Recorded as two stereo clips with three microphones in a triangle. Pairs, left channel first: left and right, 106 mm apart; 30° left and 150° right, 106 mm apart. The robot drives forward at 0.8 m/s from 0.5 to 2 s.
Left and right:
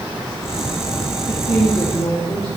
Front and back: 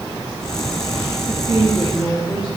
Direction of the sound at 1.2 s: 125° left.